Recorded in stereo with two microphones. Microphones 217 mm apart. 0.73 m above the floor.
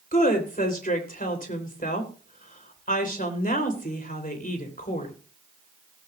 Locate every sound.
0.1 s a woman speaking: 45° left (ahead or behind), 3 m